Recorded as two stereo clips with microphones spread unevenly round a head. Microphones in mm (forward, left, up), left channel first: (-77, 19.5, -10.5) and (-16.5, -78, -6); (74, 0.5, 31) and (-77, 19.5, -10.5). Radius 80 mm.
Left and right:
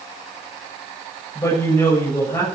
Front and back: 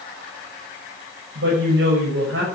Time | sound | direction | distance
1.4 | a woman speaking | 170° right | 7.5 m